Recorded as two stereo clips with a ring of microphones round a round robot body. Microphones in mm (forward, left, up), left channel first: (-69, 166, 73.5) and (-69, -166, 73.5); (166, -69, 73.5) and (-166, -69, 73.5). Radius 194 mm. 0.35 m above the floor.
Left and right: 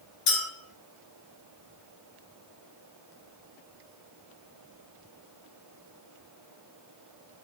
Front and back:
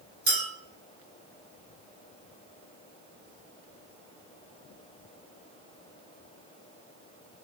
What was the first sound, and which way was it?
A clink, 110° left.